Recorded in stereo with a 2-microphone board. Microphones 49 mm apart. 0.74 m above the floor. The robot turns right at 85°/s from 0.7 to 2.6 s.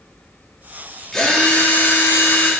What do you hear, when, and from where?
1.1 s a drill: 10° left, 1.5 m; by 2.5 s 130° left, 1.5 m